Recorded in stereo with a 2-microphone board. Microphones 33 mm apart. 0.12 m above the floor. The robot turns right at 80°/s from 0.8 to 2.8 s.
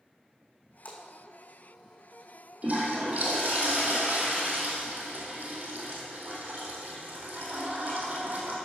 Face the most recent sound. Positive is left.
turn(degrees=-50)  # may be behind; listen again after turning